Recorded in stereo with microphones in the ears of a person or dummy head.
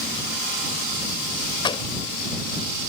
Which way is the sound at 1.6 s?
25° left (ahead or behind).